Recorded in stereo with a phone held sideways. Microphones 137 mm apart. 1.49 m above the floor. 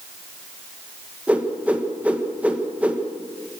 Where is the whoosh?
10° right (ahead or behind), 1.9 m.